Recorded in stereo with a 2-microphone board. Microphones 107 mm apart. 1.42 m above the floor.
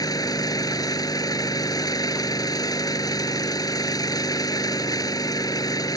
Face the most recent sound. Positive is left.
turn(degrees=35)  # may be behind; listen again after turning